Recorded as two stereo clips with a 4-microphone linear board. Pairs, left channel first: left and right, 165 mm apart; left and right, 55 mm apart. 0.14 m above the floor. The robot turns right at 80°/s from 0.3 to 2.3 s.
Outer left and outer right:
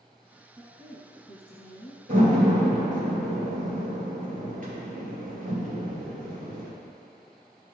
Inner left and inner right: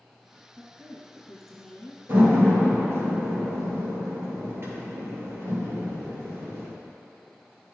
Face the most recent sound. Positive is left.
turn(degrees=-60)  # may be behind; listen again after turning